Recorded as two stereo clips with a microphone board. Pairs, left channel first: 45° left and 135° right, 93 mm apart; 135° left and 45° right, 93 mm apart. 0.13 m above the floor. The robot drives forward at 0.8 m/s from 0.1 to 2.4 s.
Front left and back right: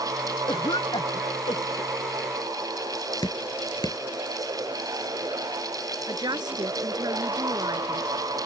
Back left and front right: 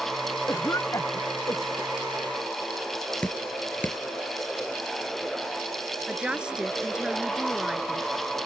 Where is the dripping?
65° left.